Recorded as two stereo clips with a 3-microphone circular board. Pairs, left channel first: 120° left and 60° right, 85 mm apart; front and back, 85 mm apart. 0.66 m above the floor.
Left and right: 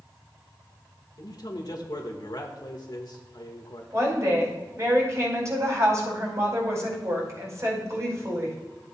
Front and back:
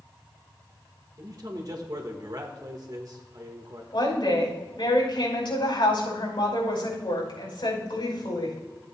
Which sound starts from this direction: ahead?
A woman speaking, at 3.9 s.